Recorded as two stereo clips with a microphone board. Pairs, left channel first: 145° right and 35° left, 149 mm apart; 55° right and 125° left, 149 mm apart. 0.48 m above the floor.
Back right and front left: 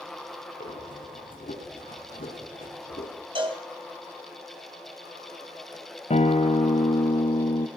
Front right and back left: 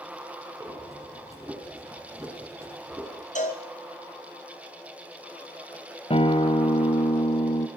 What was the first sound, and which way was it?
Breathing, 165° right.